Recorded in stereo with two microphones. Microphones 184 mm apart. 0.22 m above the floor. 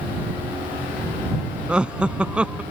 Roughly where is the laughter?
Centre.